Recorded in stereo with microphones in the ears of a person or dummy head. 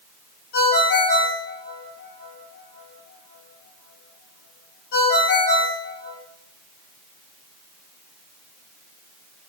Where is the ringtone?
60° left (ahead or behind), 1.4 m.